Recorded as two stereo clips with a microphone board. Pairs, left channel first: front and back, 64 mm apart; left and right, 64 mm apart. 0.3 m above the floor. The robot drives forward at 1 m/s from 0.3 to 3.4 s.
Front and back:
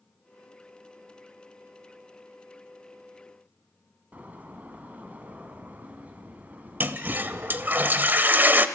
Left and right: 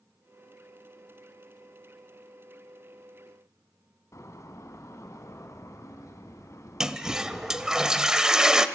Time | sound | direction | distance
4.1 | a door slam | 120° left | 1.8 m
6.8 | a toilet flushing | 160° right | 0.8 m